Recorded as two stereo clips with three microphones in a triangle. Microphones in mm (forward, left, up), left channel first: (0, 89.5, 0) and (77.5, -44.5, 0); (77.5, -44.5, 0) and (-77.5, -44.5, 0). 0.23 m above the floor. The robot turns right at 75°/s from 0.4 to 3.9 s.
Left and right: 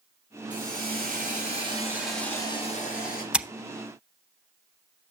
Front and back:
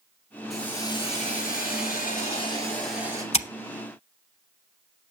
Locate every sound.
0.5 s a hiss: 90° right, 5 m; by 3.2 s 115° left, 5 m
3.3 s scissors: 20° left, 0.6 m; by 3.5 s 30° left, 0.6 m